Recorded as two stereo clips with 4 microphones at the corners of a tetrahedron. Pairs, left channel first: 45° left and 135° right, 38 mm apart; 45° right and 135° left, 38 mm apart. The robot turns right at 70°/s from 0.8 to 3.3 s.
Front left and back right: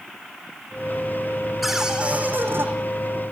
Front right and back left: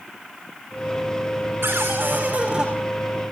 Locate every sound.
1.6 s a cupboard door: 135° left, 5 m; by 2.7 s 150° right, 5 m